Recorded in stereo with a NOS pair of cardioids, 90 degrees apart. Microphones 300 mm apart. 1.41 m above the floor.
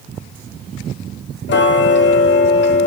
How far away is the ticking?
About 0.8 m.